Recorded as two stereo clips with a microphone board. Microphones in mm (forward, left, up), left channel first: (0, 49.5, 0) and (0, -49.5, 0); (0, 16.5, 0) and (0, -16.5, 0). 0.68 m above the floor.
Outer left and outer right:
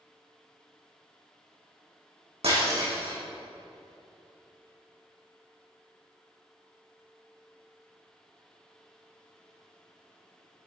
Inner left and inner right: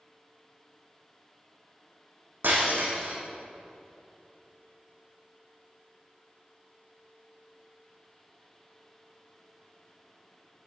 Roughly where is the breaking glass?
Right.